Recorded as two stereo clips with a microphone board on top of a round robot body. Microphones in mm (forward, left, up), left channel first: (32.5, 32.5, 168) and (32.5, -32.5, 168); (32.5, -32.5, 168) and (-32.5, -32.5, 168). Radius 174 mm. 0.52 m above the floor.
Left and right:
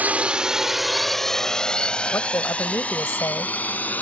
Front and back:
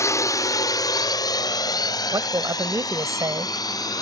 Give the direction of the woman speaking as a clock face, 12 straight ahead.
7 o'clock.